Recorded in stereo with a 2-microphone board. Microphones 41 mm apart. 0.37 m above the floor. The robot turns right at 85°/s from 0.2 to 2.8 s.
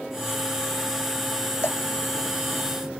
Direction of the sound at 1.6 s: 85° left.